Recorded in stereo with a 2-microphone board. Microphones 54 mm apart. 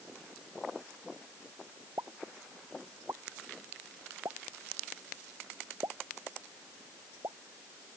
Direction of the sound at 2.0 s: 75° right (ahead or behind).